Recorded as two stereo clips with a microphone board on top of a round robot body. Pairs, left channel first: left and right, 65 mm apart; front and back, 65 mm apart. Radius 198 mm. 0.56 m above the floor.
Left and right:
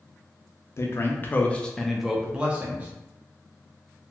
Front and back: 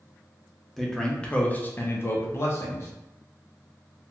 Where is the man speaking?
85° left, 0.9 m; by 2.9 s 35° right, 1.0 m.